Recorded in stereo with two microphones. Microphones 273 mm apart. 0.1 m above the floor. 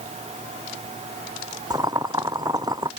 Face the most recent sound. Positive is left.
turn(degrees=-15)  # may be behind; listen again after turning